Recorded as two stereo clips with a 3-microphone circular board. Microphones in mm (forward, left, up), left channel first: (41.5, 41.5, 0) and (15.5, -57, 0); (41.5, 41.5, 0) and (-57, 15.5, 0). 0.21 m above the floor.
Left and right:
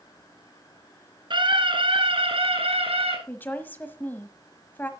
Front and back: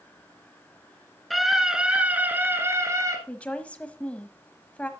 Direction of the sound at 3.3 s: 60° left.